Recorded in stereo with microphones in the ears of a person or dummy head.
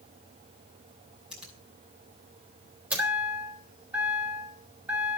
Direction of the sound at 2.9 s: 10° right (ahead or behind).